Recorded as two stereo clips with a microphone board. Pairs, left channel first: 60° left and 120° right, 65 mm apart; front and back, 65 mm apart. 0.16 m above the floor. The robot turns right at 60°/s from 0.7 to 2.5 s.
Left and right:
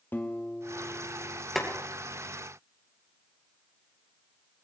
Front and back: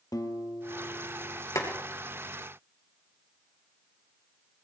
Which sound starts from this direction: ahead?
A guitar, at 0.1 s.